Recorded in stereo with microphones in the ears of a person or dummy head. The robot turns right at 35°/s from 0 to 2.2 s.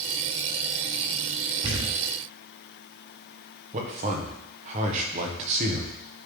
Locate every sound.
1.6 s a thud: 40° right (ahead or behind), 2.5 m; by 2.0 s 25° right (ahead or behind), 2.5 m
3.7 s a man speaking: 45° right (ahead or behind), 1.3 m